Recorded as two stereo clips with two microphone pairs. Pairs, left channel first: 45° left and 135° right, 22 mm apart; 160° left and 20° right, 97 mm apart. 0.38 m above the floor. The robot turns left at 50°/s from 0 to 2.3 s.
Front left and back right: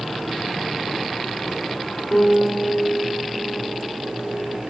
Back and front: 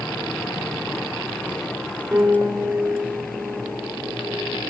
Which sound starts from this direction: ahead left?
A piano, at 2.1 s.